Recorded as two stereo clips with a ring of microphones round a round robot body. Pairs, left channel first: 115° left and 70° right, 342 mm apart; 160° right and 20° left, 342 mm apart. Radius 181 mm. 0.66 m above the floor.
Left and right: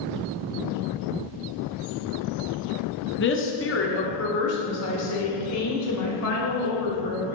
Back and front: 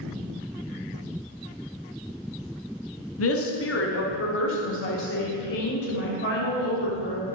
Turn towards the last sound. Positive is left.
turn(degrees=145)